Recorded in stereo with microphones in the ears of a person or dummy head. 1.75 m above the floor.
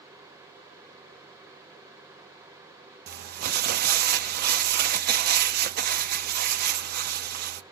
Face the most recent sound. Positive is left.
turn(degrees=-50)  # may be behind; listen again after turning